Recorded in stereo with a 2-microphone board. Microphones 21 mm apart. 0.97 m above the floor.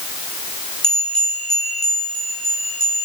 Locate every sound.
0.8 s a bell: 30° left (ahead or behind), 6 m